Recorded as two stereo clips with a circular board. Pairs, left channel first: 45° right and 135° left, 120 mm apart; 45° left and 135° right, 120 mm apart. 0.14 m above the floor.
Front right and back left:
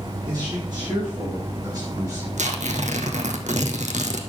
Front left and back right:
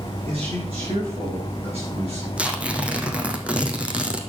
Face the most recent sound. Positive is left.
turn(degrees=145)